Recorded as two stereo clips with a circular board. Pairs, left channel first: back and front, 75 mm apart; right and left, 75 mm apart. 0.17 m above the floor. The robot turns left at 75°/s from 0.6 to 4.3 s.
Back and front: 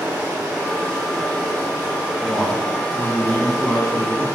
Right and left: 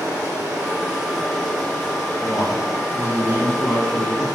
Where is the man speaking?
115° right, 1.9 m; by 4.2 s 90° left, 1.9 m.